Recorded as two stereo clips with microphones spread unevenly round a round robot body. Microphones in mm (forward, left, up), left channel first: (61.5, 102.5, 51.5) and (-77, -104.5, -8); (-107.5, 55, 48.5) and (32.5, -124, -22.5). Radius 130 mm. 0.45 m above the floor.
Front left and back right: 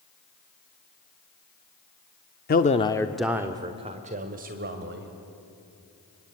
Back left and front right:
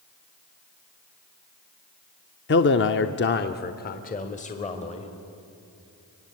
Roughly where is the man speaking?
Left.